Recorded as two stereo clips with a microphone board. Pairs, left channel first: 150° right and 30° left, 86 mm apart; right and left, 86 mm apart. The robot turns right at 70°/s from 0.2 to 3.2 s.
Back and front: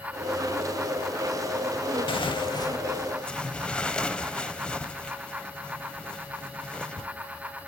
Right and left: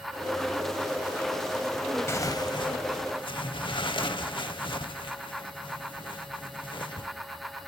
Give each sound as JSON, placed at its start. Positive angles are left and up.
{"t": 2.1, "sound": "tearing paper", "azimuth_deg": -150, "distance_m": 0.8}